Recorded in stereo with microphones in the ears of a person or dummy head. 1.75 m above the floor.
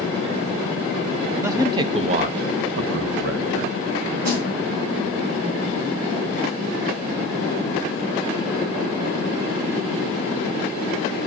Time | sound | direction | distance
1.4 | a man speaking | 15° right (ahead or behind) | 1.2 m
4.2 | a snare drum | 55° right (ahead or behind) | 6 m